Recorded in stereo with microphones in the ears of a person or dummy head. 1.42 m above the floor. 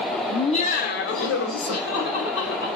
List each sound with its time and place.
0.3 s laughter: 15° left (ahead or behind), 0.8 m; by 2.7 s 80° left, 2 m